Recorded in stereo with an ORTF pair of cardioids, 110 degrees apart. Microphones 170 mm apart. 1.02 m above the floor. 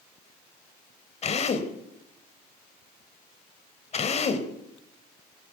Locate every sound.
1.2 s a drill: 40° left, 3 m